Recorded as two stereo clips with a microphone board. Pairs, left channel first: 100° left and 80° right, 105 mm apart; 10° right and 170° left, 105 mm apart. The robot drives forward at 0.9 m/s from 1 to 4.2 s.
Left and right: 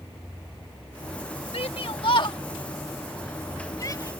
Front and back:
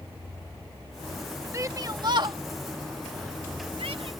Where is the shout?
110° left; by 4.1 s 155° left.